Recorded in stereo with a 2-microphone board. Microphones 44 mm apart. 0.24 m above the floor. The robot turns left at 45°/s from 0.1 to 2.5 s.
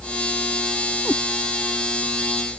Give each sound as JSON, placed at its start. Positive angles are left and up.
{"t": 1.1, "sound": "a cat meowing", "side_deg": 25}